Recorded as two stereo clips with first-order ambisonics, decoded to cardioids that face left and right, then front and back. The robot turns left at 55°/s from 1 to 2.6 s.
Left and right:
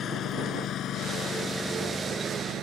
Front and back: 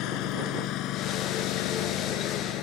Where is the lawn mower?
30° left; by 2.6 s 35° right.